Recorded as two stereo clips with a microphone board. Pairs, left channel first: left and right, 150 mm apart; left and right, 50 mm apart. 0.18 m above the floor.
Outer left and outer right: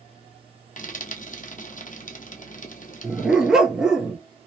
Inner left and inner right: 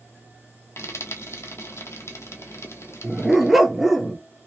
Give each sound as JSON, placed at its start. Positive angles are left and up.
{"t": 0.8, "sound": "frying", "side_deg": 70, "distance_m": 1.1}
{"t": 3.0, "sound": "a dog barking", "side_deg": -5, "distance_m": 0.8}